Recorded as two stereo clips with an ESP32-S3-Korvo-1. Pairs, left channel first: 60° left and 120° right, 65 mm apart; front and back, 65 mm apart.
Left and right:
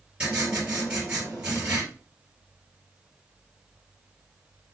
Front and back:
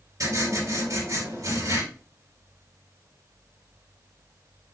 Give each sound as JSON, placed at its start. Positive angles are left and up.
{"t": 0.2, "sound": "writing", "azimuth_deg": 170, "distance_m": 3.0}